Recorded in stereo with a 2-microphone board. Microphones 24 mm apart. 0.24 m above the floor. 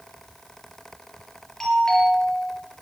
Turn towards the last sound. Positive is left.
turn(degrees=15)  # may be behind; listen again after turning